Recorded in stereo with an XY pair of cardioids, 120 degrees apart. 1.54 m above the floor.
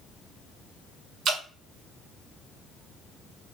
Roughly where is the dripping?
Ahead right.